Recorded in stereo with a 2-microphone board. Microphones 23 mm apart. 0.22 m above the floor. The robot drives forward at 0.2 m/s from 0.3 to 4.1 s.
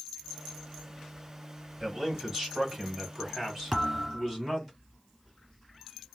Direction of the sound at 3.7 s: 5° right (ahead or behind).